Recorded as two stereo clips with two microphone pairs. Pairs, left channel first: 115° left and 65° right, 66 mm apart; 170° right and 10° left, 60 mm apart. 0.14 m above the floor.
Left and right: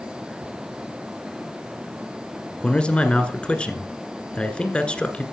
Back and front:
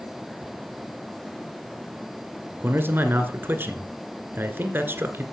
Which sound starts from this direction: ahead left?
A man speaking, at 2.6 s.